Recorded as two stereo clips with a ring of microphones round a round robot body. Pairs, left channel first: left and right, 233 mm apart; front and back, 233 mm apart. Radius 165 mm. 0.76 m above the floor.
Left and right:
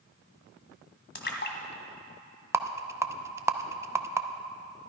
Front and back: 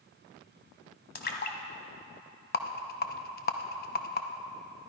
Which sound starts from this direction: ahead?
A rattle, at 2.5 s.